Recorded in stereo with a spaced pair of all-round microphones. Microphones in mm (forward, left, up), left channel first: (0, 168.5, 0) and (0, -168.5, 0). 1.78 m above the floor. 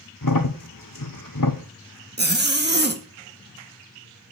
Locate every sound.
0.2 s a crack: 70° left (ahead or behind), 1.0 m
2.2 s a zipper: 30° right (ahead or behind), 1.2 m